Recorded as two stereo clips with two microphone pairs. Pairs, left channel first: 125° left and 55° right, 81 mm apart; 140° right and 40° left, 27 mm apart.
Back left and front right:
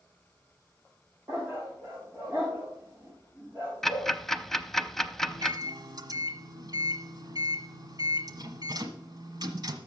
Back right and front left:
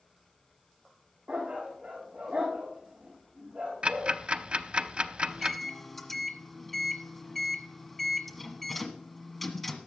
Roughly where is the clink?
No clink in this recording.